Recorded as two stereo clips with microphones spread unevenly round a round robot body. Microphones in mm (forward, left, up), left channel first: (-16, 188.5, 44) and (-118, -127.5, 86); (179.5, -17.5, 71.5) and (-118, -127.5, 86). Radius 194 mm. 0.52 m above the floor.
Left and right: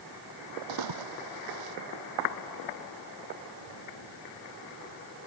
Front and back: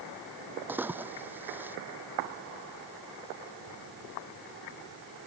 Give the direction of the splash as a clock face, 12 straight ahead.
3 o'clock.